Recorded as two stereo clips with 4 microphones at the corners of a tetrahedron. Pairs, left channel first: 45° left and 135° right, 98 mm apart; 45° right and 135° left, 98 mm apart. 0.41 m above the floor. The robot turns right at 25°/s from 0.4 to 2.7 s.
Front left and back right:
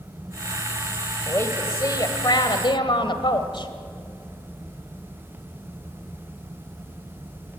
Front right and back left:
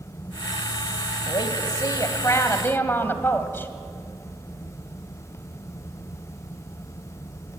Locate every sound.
1.3 s a woman speaking: 15° right, 1.9 m; by 3.7 s 20° left, 1.9 m